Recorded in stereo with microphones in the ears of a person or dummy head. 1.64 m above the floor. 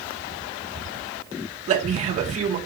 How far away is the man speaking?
About 1.5 m.